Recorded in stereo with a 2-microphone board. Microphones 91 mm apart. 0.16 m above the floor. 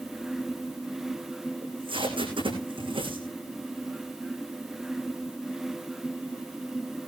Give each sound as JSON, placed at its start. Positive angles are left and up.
{"t": 1.6, "sound": "tape being pulled", "side_deg": -70, "distance_m": 7.5}